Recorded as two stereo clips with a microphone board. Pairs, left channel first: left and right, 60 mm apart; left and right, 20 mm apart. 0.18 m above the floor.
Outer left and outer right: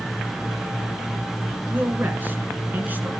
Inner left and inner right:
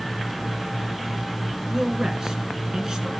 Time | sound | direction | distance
1.7 | a man speaking | 30° right (ahead or behind) | 2.0 m